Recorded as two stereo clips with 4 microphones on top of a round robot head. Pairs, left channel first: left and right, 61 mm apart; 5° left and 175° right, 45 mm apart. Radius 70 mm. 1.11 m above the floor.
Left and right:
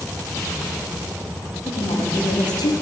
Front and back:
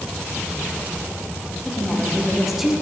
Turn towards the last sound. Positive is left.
turn(degrees=100)